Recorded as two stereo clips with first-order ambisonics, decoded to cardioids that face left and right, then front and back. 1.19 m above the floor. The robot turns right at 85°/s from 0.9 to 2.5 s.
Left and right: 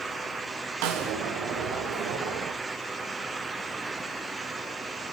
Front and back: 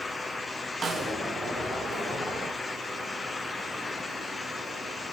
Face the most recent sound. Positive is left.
turn(degrees=25)